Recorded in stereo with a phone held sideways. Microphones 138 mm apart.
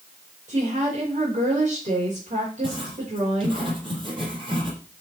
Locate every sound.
0.5 s a woman speaking: 60° right (ahead or behind), 5.5 m
2.6 s writing: 40° right (ahead or behind), 6 m